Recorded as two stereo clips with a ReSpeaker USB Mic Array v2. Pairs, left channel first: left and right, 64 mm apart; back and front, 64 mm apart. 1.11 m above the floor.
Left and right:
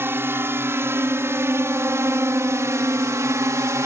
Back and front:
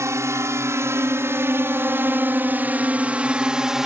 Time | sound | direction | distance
0.0 | a drone | 40° right | ?